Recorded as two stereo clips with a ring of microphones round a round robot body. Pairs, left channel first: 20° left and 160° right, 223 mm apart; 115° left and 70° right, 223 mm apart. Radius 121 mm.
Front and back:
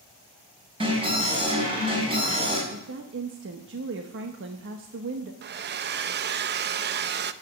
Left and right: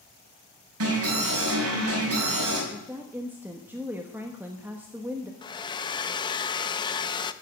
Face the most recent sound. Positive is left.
turn(degrees=180)